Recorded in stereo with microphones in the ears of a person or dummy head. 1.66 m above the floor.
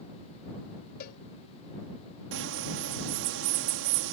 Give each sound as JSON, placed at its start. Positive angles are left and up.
{"t": 1.0, "sound": "a cowbell", "side_deg": 60}
{"t": 2.3, "sound": "a bird", "side_deg": -70}